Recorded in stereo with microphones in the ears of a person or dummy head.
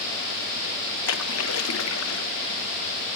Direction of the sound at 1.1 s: 75° left (ahead or behind).